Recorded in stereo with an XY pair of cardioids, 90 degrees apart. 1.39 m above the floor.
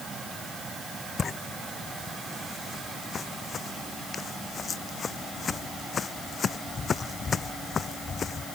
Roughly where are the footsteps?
Ahead left.